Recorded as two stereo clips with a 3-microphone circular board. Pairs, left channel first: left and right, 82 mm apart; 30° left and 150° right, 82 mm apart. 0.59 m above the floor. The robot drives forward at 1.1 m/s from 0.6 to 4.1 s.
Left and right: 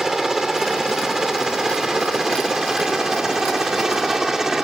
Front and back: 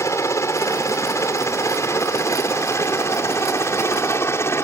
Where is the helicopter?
5° right.